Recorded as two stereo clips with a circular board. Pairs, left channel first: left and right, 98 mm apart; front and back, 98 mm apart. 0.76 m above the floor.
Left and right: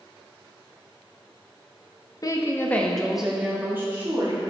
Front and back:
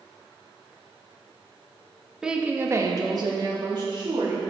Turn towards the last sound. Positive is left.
turn(degrees=-145)